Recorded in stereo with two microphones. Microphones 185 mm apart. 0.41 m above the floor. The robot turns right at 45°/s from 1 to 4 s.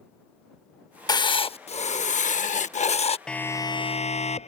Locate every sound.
1.1 s writing: 35° left; by 3.2 s 125° left
3.3 s a siren: 5° left (ahead or behind); by 4.5 s 35° left (ahead or behind)